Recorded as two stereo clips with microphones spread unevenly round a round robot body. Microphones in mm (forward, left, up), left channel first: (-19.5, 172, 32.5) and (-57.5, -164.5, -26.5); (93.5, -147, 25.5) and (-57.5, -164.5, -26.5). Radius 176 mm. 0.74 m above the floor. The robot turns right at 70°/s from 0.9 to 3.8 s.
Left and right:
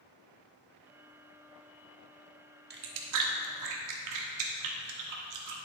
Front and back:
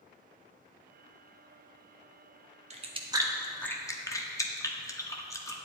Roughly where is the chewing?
Behind right.